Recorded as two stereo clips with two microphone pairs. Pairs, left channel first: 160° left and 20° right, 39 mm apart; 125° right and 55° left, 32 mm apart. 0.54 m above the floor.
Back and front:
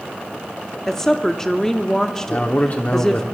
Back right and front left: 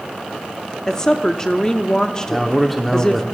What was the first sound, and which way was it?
A woman speaking, 150° right.